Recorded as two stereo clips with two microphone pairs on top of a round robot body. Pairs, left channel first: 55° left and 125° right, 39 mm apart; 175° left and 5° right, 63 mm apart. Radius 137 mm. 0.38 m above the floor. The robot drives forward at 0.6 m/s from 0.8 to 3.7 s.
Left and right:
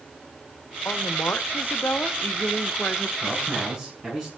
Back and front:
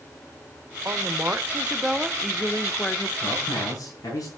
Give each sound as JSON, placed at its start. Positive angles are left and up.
{"t": 0.8, "sound": "a woman speaking", "azimuth_deg": 40, "distance_m": 1.5}
{"t": 3.2, "sound": "a man speaking", "azimuth_deg": 140, "distance_m": 6.5}